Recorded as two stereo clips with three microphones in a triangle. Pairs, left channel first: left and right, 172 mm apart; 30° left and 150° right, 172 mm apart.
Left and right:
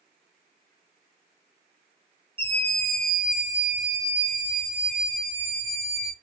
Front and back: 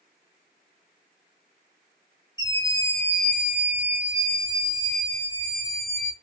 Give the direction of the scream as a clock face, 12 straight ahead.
11 o'clock.